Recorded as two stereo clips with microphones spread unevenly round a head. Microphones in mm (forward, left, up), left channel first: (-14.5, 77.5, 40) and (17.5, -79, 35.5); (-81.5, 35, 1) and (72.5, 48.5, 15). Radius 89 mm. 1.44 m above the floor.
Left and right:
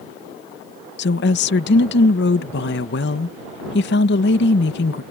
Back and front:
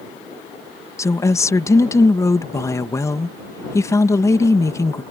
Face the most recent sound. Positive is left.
turn(degrees=115)